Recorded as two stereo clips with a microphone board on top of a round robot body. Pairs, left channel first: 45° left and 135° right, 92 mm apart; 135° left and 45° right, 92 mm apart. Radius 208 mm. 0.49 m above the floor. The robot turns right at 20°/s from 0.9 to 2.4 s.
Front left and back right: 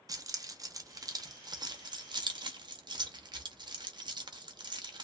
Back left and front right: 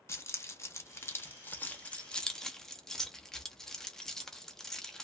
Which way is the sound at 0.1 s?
170° right.